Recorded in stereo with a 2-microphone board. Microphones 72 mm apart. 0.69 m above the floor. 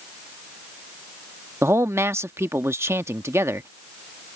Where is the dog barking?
I don't hear a dog barking.